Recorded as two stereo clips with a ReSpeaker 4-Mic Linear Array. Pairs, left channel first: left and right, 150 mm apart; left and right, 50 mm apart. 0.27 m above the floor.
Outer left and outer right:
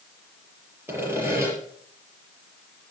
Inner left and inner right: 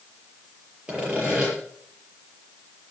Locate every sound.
0.9 s sawing: 15° right (ahead or behind), 6.5 m